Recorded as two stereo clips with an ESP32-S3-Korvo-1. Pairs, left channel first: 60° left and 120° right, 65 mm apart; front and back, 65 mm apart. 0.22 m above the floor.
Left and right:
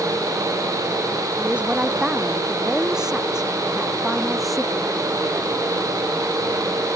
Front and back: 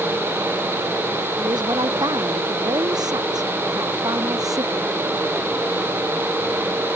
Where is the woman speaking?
165° left; by 4.9 s 145° left.